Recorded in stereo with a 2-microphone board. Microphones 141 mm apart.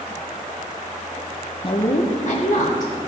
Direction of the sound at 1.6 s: 35° left (ahead or behind).